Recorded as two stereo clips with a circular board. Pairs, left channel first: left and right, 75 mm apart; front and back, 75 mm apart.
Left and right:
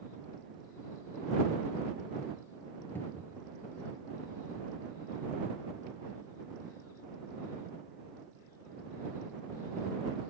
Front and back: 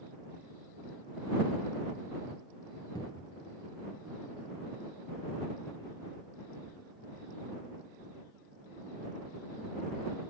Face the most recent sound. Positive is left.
turn(degrees=30)